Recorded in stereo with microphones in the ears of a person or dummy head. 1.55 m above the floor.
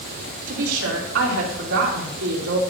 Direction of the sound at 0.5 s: 80° right.